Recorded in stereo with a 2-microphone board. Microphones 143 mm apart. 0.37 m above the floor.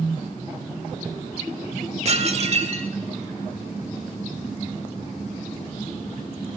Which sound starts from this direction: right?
Dishes clattering, at 2.0 s.